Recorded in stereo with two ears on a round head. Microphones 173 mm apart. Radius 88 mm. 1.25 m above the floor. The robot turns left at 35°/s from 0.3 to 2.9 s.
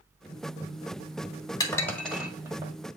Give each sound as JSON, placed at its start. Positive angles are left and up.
{"t": 1.6, "sound": "dishes clattering", "side_deg": 20, "distance_m": 1.6}